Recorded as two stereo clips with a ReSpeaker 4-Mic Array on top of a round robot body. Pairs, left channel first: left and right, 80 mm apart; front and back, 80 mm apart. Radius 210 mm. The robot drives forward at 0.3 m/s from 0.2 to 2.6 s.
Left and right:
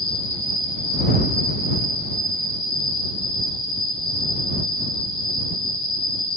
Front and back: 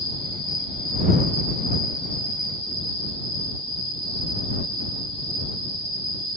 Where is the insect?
25° left, 1.0 m; by 6.4 s 70° left, 0.5 m.